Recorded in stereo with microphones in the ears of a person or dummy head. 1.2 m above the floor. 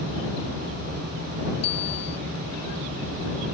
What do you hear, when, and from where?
1.6 s a bicycle bell: 35° left (ahead or behind)